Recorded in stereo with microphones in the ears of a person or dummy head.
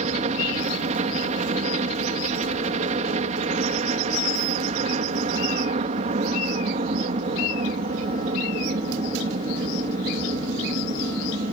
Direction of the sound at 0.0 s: 35° right (ahead or behind).